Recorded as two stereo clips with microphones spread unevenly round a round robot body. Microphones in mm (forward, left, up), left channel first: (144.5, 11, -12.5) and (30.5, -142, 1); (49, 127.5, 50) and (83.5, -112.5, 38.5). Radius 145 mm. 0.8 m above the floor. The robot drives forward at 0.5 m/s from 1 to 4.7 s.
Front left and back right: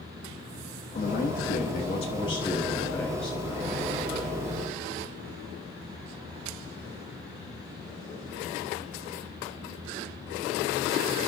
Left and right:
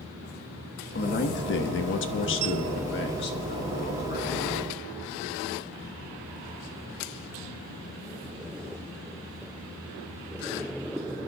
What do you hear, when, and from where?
0.9 s a man speaking: 65° left, 1.1 m; by 4.4 s 150° left, 1.7 m